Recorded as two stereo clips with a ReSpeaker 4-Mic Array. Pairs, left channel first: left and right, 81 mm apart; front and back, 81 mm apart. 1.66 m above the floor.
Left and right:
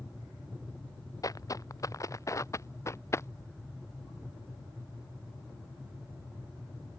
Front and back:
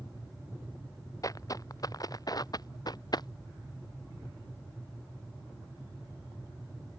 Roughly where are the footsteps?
Ahead left.